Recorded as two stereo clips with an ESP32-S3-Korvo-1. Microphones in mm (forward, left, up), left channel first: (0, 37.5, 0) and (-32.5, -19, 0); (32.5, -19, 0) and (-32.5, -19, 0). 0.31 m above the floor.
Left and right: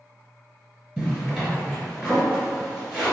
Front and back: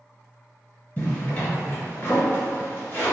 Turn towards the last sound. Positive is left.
turn(degrees=-30)